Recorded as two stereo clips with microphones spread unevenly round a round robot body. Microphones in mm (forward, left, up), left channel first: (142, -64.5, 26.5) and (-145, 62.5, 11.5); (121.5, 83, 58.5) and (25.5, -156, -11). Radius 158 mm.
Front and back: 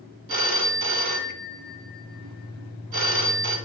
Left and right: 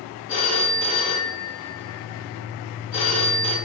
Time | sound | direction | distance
0.3 | a phone ringing | 170° left | 1.8 m